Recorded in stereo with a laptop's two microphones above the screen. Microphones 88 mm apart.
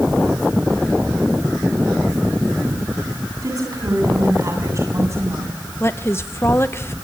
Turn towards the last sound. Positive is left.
turn(degrees=30)  # may be behind; listen again after turning